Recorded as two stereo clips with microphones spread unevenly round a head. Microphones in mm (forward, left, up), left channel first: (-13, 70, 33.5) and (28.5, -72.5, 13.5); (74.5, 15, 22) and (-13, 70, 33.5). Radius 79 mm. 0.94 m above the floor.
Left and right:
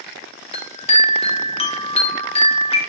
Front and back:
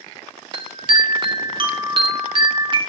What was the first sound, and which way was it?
A chime, 145° left.